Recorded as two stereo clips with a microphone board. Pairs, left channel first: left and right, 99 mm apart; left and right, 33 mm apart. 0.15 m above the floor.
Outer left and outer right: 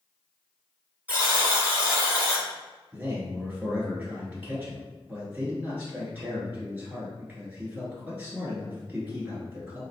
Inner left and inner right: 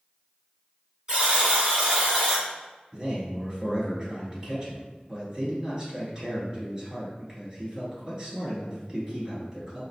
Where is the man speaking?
15° right (ahead or behind), 1.9 m.